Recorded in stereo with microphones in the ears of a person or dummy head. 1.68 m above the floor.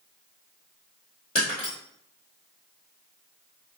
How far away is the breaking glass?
About 2.0 m.